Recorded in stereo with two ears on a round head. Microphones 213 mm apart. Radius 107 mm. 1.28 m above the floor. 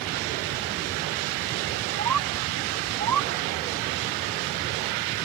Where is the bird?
85° right.